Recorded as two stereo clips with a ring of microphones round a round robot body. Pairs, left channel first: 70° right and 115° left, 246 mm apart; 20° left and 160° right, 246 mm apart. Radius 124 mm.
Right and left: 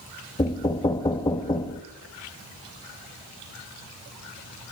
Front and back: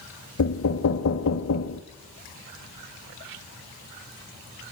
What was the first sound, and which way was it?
Knocking, 5° left.